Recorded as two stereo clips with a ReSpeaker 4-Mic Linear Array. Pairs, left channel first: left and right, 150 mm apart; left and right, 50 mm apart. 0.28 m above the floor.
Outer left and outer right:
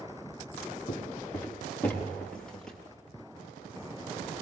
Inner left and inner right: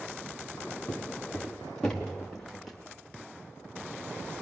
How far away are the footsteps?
About 4 m.